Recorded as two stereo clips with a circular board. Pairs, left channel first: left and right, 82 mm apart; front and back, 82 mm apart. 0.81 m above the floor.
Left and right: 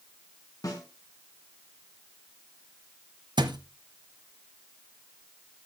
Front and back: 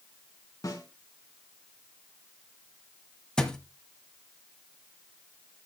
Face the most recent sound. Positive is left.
turn(degrees=-80)